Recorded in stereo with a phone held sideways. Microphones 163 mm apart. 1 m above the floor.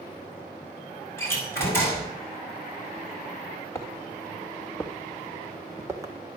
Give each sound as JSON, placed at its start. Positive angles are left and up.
{"t": 1.2, "sound": "a door slam", "side_deg": 15, "distance_m": 6.0}
{"t": 3.8, "sound": "footsteps", "side_deg": 15, "distance_m": 3.5}